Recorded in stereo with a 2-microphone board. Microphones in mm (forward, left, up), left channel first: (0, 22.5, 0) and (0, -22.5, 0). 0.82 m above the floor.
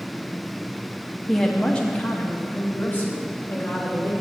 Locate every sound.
1.3 s a woman speaking: 5° left (ahead or behind), 0.8 m; by 4.1 s 45° left (ahead or behind), 2 m